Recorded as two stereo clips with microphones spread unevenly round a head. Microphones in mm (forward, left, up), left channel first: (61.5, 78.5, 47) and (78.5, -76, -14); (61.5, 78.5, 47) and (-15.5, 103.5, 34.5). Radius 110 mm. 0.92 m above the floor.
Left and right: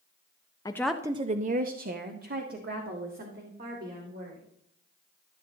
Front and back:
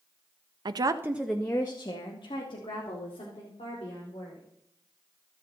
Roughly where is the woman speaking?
Behind.